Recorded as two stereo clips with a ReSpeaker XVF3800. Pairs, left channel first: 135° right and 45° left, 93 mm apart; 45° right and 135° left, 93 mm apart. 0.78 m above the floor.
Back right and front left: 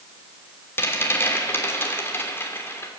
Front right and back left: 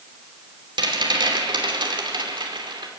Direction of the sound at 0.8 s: 160° left.